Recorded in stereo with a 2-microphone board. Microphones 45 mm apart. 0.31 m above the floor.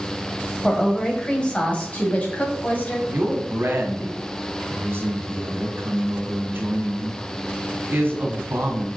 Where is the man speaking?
55° right (ahead or behind), 1.9 m.